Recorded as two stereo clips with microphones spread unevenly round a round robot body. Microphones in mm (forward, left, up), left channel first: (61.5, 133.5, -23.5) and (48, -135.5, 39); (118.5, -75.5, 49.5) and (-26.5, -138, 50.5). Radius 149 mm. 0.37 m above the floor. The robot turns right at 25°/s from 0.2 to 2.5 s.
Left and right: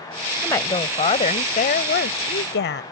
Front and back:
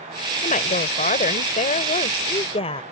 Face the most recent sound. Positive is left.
turn(degrees=70)